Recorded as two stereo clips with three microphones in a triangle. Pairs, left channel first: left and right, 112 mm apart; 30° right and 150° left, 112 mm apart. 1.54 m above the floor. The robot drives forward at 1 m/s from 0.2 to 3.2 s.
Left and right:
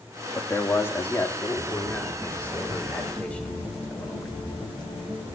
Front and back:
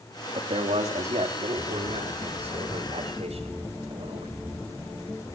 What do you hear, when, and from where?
0.3 s a man speaking: 155° left, 2 m; by 4.4 s 170° left, 5 m